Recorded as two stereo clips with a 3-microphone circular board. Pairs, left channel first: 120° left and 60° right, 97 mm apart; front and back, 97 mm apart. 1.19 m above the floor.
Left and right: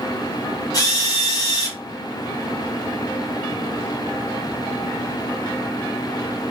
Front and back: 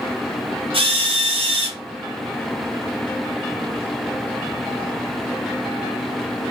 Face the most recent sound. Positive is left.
turn(degrees=170)